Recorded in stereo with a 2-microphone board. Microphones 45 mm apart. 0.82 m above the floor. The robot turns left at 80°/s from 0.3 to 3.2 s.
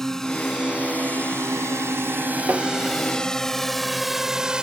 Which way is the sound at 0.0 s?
10° left (ahead or behind).